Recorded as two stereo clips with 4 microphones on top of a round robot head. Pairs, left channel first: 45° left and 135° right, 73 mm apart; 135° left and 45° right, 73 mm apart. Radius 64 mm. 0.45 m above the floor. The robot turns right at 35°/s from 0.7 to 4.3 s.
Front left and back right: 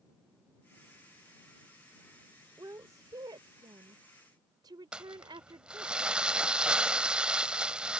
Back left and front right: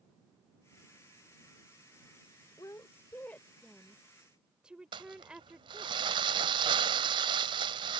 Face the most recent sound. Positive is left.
turn(degrees=-60)